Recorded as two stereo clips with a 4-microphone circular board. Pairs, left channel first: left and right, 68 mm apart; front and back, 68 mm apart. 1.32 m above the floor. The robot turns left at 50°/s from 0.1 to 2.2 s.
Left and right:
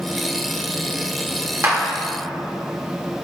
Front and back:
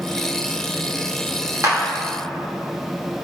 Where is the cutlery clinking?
No cutlery clinking in this recording.